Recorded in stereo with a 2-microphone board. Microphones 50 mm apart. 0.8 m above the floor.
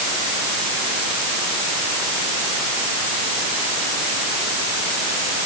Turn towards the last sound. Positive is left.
No sound to turn to.